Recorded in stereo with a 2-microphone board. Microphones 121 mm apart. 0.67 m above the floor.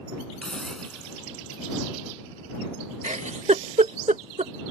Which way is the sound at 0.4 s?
5° left (ahead or behind).